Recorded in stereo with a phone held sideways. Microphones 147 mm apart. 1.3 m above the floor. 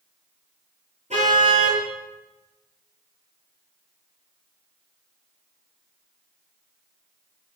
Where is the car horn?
50° right (ahead or behind), 10 m.